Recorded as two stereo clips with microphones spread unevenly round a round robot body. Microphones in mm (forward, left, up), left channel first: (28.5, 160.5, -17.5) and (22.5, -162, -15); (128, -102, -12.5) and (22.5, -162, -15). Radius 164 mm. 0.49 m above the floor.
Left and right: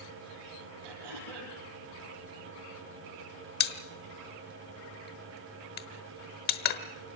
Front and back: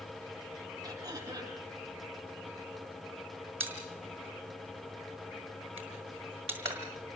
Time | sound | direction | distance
0.8 | throat clearing | 90° right | 9.5 m
3.6 | a pop | 150° left | 1.1 m